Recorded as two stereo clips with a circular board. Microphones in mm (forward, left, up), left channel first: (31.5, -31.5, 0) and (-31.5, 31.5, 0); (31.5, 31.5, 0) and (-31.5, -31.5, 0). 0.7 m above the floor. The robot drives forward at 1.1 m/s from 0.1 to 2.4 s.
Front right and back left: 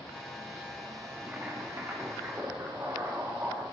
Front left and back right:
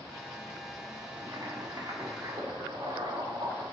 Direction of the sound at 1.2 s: 160° right.